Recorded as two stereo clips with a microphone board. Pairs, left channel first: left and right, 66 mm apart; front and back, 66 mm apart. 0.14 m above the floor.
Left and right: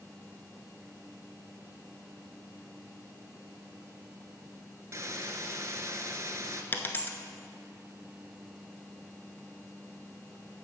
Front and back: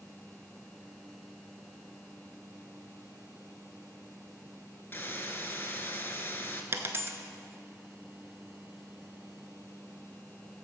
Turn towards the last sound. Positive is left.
turn(degrees=140)